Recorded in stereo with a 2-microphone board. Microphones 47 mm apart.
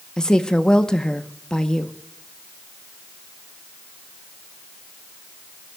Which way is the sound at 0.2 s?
15° left (ahead or behind).